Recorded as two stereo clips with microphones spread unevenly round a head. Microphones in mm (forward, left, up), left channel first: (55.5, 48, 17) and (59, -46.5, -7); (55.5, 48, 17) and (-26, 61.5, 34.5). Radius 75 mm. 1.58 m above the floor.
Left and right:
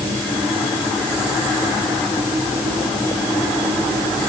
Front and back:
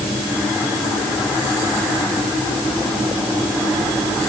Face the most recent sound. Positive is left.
No sound to turn to.